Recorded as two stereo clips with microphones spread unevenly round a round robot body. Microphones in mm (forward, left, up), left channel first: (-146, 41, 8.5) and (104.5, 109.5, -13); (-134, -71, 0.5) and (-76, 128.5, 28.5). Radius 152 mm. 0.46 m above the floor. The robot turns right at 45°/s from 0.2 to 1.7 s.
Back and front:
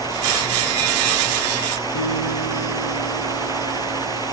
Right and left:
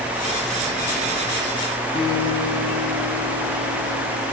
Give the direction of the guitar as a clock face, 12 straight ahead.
6 o'clock.